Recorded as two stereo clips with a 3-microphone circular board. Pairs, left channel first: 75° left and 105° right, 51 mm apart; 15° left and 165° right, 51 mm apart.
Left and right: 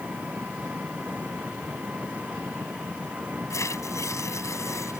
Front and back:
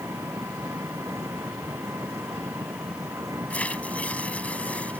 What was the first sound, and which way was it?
An engine running, 165° right.